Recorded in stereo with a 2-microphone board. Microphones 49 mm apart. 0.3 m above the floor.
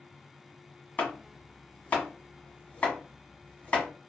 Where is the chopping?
30° left (ahead or behind), 1.2 m.